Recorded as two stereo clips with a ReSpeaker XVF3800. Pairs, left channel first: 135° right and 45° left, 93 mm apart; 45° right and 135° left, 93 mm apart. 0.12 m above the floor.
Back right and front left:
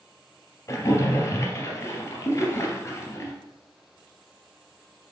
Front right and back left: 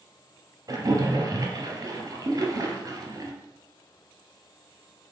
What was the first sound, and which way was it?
A splash, 175° left.